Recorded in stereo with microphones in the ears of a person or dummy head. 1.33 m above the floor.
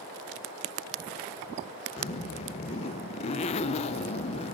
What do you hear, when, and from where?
2.0 s a zipper: 30° left (ahead or behind), 0.9 m